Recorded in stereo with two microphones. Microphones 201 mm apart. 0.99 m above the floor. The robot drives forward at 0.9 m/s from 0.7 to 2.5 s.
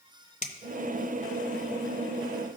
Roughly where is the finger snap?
Left.